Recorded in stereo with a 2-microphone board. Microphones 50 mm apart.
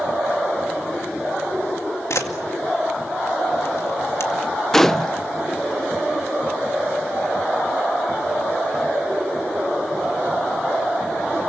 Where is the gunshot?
5° left (ahead or behind), 0.6 m.